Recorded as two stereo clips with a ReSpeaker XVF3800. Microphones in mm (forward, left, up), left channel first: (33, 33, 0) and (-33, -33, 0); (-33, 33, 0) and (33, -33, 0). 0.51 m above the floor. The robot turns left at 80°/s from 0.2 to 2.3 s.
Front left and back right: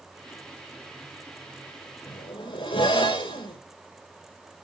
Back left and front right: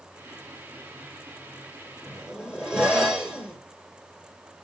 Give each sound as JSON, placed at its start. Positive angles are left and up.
{"t": 2.1, "sound": "a zipper", "azimuth_deg": 55, "distance_m": 6.5}